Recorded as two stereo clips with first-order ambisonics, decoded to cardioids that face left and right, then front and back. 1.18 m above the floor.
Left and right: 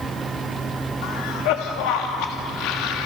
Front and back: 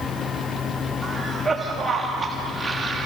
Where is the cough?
100° left, 1.6 m.